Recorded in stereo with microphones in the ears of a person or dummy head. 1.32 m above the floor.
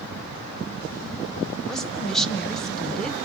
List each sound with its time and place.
1.7 s a woman speaking: 5° left (ahead or behind), 0.9 m